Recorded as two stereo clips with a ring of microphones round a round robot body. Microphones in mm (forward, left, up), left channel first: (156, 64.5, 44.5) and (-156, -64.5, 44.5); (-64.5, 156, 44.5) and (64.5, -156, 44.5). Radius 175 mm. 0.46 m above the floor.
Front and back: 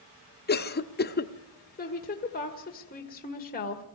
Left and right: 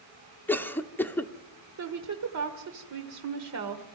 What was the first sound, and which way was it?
A cough, 35° left.